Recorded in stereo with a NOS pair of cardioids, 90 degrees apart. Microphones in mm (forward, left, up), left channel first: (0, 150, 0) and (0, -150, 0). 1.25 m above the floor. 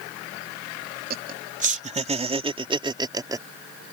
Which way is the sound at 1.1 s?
30° right.